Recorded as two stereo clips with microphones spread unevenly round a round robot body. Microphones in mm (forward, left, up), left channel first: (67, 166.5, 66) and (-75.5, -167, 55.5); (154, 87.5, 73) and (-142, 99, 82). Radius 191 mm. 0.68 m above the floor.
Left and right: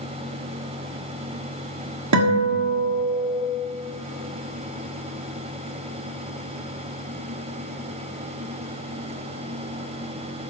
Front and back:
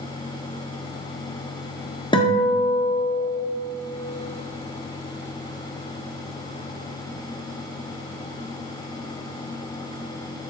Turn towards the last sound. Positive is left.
turn(degrees=-75)